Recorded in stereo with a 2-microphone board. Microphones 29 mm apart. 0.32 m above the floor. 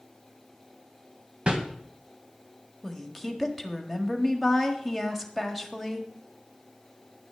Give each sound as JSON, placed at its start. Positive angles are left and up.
{"t": 1.5, "sound": "a whoosh", "side_deg": -35, "distance_m": 1.6}
{"t": 2.8, "sound": "a woman speaking", "side_deg": 0, "distance_m": 1.5}